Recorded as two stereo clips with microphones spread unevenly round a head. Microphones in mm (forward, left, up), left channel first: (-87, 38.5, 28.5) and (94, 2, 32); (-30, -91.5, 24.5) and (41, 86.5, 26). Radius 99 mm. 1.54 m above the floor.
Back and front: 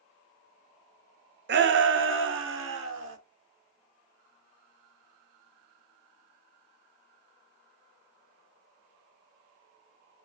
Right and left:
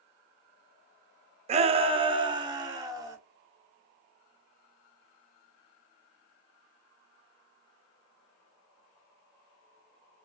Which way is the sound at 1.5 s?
15° left.